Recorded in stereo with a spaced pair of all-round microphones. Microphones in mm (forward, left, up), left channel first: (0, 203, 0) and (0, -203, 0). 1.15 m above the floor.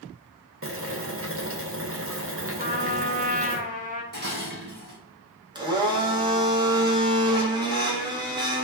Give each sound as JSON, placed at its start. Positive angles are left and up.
{"t": 0.6, "sound": "boiling", "side_deg": -35, "distance_m": 0.6}
{"t": 2.6, "sound": "a trumpet", "side_deg": -20, "distance_m": 0.6}
{"t": 4.1, "sound": "dishes clattering", "side_deg": -25, "distance_m": 0.7}
{"t": 5.5, "sound": "a blender", "side_deg": -10, "distance_m": 0.6}